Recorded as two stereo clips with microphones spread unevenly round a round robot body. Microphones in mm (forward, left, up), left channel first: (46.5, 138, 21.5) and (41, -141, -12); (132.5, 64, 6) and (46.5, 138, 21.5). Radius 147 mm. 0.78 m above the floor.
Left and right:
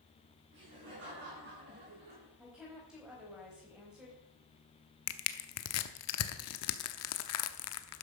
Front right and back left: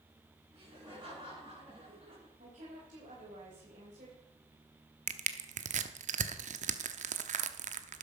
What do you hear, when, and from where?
0.5 s laughter: 145° right, 8 m; by 2.3 s 150° right, 7.5 m
2.4 s a woman speaking: 175° right, 4 m
5.1 s crushing: 135° left, 0.8 m